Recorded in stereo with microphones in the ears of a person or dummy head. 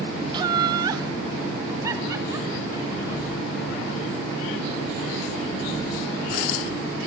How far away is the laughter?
About 0.5 m.